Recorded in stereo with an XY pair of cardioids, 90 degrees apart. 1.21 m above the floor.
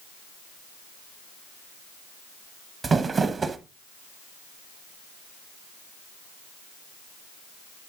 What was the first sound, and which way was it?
Crumpling, 45° right.